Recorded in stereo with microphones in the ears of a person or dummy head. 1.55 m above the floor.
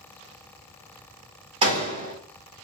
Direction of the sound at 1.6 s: 30° right (ahead or behind).